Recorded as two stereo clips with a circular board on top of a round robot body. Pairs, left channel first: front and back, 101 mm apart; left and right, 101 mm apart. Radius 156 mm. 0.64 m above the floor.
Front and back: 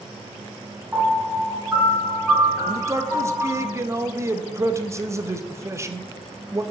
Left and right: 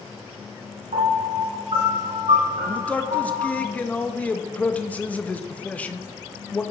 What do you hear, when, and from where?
0.9 s a piano: 100° right, 3.5 m
2.7 s a man speaking: 155° left, 0.9 m